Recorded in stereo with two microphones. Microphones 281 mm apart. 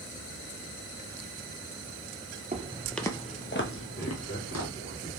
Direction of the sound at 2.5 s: 30° right (ahead or behind).